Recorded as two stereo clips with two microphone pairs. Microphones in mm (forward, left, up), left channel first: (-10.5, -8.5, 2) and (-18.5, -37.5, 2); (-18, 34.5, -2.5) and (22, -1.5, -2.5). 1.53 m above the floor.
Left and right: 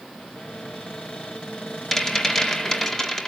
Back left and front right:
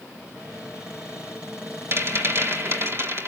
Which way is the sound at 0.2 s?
25° left.